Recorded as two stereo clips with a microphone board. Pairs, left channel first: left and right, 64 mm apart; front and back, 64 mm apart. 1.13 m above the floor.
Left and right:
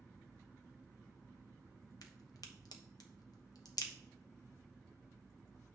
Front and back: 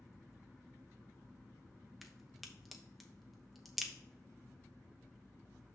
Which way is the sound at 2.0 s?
90° left.